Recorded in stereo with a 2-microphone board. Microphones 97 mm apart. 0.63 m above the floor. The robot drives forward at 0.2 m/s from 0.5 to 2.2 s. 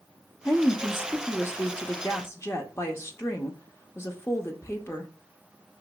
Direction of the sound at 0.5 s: 25° left (ahead or behind).